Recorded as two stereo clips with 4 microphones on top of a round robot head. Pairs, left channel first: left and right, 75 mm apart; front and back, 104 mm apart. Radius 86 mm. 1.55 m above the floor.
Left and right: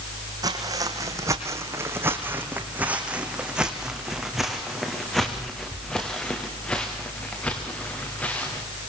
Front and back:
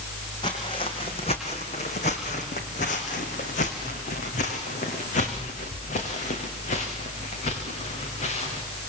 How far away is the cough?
I don't hear a cough.